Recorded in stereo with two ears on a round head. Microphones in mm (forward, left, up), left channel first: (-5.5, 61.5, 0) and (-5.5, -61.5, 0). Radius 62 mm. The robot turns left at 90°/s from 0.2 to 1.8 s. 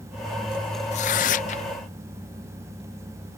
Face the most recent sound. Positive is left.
turn(degrees=40)